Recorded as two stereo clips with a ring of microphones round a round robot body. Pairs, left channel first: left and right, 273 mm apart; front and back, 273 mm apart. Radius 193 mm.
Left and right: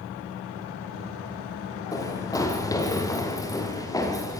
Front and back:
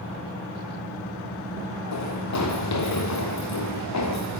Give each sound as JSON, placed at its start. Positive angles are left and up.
{"t": 1.9, "sound": "running footsteps", "azimuth_deg": 15, "distance_m": 8.0}